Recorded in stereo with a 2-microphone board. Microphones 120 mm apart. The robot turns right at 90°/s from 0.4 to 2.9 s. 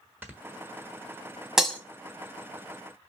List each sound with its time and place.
0.2 s snoring: 15° right (ahead or behind), 1.2 m
1.6 s breaking glass: 5° right (ahead or behind), 1.2 m; by 1.8 s 15° left (ahead or behind), 1.2 m